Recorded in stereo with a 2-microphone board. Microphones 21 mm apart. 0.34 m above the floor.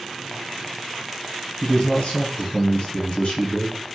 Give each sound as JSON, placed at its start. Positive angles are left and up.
{"t": 1.6, "sound": "a man speaking", "side_deg": 50, "distance_m": 1.8}